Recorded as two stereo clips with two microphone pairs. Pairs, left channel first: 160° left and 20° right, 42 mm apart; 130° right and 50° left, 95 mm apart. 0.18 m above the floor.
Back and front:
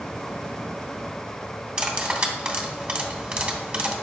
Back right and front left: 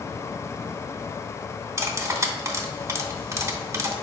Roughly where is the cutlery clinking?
Ahead left.